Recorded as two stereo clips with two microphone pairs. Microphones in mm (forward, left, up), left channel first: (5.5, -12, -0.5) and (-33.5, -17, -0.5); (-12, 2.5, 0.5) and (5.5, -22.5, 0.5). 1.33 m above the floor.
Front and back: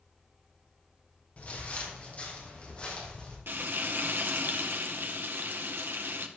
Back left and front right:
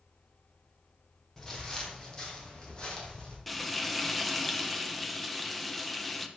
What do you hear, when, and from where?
1.4 s footsteps: 55° left, 3 m; by 3.4 s 75° left, 4.5 m
3.5 s frying: 145° right, 1.0 m